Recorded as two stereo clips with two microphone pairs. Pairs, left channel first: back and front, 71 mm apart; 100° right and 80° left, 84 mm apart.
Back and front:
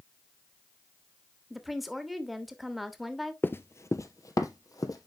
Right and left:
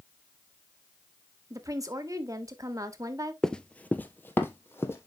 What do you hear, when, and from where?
1.5 s a woman speaking: 85° left, 1.2 m
3.4 s running footsteps: 175° right, 0.6 m; by 5.1 s 160° right, 1.8 m